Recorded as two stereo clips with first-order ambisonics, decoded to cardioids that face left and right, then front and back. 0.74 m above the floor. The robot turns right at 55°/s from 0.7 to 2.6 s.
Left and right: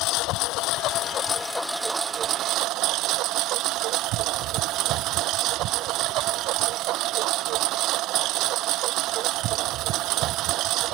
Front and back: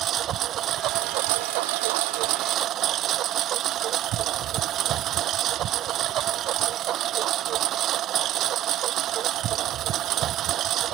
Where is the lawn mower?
125° left; by 10.9 s 130° right.